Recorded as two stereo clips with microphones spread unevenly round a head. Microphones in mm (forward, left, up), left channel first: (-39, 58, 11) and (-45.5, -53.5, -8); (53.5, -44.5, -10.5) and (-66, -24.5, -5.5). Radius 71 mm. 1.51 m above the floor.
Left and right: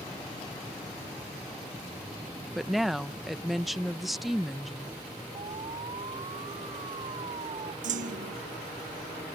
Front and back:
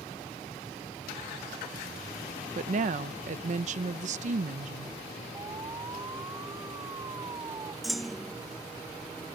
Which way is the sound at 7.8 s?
100° right.